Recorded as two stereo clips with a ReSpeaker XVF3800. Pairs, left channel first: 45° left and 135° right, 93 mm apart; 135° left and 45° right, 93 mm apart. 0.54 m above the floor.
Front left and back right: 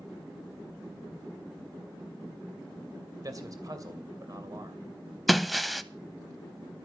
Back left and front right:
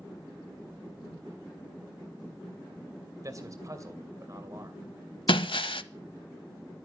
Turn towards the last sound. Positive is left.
turn(degrees=135)